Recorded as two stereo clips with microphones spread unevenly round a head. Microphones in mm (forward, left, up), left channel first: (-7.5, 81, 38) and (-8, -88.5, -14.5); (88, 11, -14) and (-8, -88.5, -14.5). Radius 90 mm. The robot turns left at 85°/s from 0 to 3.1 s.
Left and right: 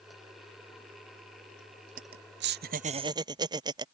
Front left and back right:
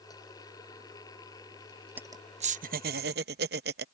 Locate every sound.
2.0 s laughter: 55° right; by 3.9 s 155° right